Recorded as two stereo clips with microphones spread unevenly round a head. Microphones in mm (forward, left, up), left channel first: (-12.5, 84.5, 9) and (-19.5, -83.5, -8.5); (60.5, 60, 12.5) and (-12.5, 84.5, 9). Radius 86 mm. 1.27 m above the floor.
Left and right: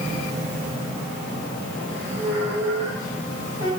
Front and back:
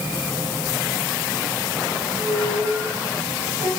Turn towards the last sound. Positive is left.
turn(degrees=-165)